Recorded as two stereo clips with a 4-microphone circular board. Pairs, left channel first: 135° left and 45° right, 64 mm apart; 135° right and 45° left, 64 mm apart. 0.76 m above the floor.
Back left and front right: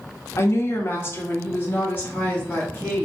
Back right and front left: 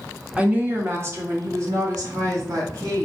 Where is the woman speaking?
110° left, 0.9 m; by 3.1 s 70° left, 2.5 m.